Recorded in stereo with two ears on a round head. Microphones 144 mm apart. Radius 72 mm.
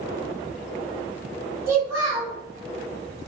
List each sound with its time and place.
1.7 s a child speaking: 20° right (ahead or behind), 1.5 m